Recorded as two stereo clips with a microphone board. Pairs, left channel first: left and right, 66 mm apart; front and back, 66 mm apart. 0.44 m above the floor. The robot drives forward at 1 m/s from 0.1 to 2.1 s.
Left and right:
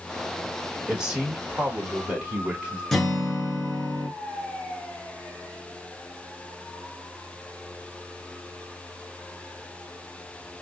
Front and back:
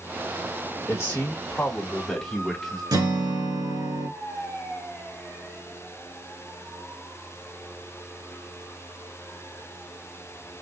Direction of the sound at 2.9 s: 175° left.